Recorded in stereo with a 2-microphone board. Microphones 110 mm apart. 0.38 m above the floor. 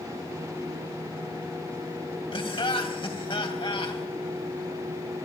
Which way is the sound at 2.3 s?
55° left (ahead or behind).